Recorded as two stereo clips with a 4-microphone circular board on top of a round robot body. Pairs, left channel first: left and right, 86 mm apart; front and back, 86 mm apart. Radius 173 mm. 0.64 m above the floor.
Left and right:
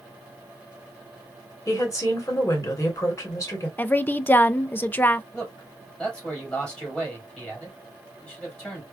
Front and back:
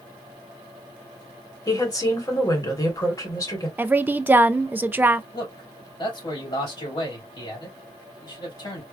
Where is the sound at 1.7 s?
40° left, 2.5 m.